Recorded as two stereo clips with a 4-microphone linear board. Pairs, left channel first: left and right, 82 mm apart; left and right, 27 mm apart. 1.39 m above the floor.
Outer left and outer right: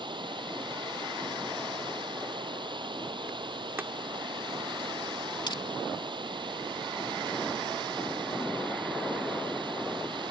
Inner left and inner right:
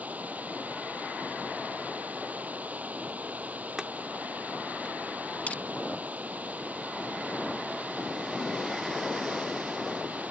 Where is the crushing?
75° left (ahead or behind).